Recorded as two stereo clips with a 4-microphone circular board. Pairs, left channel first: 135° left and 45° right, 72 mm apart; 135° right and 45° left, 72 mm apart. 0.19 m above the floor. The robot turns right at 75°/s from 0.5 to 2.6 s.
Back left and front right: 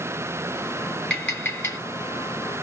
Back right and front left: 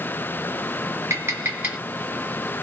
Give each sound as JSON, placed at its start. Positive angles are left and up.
{"t": 1.1, "sound": "tapping", "azimuth_deg": 60, "distance_m": 1.8}